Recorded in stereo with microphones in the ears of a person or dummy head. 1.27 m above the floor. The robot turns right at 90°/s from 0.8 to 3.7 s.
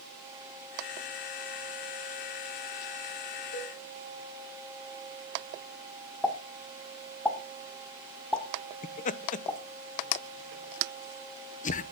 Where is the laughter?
40° left (ahead or behind), 0.8 m.